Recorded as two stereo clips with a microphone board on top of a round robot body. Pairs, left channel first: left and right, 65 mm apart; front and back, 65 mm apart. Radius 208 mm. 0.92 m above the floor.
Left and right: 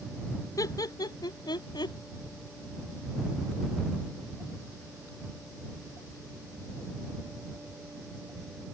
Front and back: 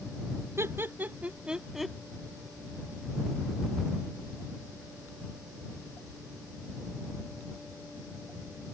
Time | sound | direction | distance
0.6 | laughter | 130° left | ?